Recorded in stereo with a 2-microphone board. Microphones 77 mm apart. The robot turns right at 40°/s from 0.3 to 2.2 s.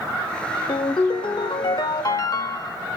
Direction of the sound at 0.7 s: 75° left.